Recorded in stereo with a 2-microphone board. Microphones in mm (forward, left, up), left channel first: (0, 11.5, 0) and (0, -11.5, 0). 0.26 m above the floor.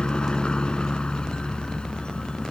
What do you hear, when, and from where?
0.0 s a helicopter: 40° left (ahead or behind)